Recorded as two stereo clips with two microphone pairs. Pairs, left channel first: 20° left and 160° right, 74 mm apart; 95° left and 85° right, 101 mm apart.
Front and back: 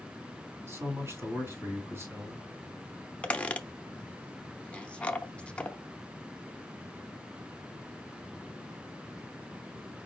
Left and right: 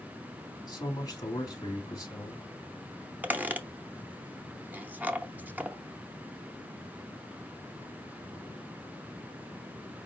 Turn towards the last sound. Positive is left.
turn(degrees=-35)